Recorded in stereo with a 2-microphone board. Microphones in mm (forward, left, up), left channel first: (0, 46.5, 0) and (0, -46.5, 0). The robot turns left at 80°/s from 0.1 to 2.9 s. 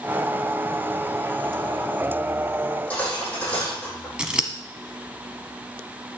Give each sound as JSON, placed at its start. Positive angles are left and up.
{"t": 2.6, "sound": "cutlery clinking", "side_deg": 40, "distance_m": 6.5}
{"t": 4.2, "sound": "scissors", "side_deg": -10, "distance_m": 1.2}